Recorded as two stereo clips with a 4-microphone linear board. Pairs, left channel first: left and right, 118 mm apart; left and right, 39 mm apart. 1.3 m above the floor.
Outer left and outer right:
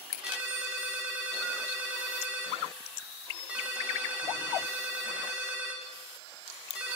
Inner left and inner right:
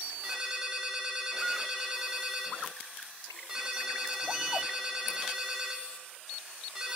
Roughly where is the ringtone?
Centre.